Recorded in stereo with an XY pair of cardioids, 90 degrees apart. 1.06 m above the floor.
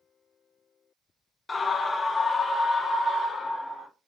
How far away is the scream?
About 0.5 m.